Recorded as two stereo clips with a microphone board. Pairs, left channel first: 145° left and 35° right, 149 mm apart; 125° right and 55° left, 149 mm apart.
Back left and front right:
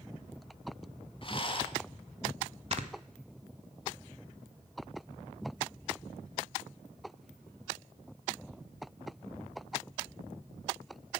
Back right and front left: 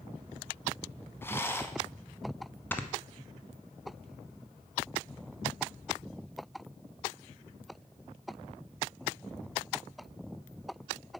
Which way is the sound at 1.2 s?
170° left.